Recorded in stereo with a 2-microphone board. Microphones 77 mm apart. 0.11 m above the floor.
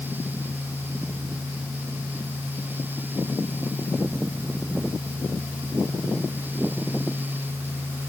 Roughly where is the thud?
No thud in this recording.